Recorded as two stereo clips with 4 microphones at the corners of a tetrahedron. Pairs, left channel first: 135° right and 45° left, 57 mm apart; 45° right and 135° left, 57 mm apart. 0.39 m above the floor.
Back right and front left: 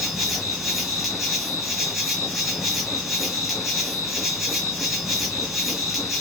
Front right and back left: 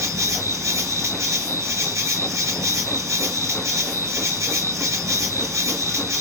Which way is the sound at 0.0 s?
130° left.